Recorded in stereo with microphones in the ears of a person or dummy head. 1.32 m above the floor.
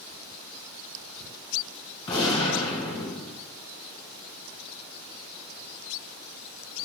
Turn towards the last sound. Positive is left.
turn(degrees=25)  # may be behind; listen again after turning